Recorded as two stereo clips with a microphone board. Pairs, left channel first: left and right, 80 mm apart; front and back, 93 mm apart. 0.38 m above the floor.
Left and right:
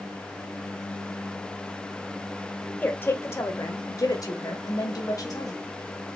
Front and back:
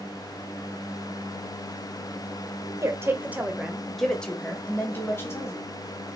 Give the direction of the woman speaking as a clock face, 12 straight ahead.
7 o'clock.